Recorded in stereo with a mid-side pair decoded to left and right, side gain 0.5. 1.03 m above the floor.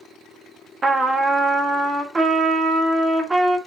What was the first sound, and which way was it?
A trumpet, 25° right.